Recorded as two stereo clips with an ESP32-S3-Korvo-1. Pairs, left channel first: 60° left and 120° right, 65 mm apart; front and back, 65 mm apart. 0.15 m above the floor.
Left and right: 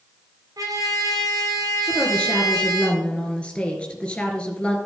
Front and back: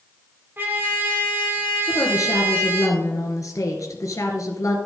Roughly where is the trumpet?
Behind right.